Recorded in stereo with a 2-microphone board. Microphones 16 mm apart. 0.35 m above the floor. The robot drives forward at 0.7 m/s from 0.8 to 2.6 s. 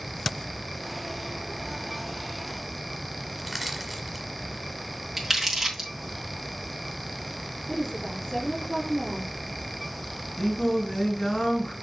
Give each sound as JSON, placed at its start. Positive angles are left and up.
{"t": 3.4, "sound": "crushing", "side_deg": -5, "distance_m": 1.5}
{"t": 5.2, "sound": "crumpling", "side_deg": -15, "distance_m": 3.0}
{"t": 7.7, "sound": "a woman speaking", "side_deg": 50, "distance_m": 5.5}
{"t": 10.4, "sound": "singing", "side_deg": 45, "distance_m": 4.0}